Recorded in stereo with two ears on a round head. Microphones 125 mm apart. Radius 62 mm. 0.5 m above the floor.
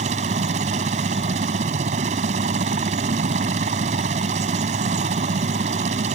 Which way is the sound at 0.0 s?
50° right (ahead or behind).